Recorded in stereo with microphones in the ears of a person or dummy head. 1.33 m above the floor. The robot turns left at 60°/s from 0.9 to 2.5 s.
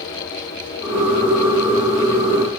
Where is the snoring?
I don't hear snoring.